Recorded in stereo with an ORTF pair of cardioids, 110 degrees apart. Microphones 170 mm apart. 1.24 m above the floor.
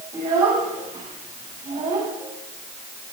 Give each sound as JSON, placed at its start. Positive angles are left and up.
{"t": 0.1, "sound": "a child speaking", "azimuth_deg": -45, "distance_m": 6.0}